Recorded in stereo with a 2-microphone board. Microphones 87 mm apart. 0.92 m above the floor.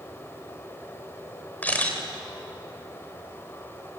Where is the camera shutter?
20° left (ahead or behind), 3.5 m.